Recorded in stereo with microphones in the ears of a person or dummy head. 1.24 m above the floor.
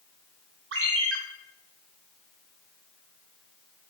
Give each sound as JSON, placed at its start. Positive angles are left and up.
{"t": 0.7, "sound": "a ringtone", "side_deg": -75, "distance_m": 1.3}